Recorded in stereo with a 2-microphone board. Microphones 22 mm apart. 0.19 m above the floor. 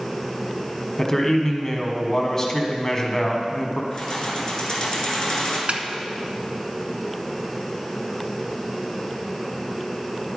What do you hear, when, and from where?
1.0 s a man speaking: 25° left (ahead or behind), 1.2 m
3.9 s keys jangling: 30° left (ahead or behind), 1.9 m
5.7 s a snare drum: 60° right (ahead or behind), 0.7 m